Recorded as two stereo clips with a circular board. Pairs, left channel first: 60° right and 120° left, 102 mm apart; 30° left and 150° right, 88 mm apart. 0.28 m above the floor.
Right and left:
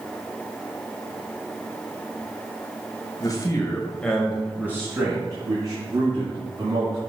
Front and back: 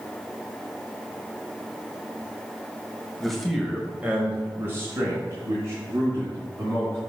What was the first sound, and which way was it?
A man speaking, 55° right.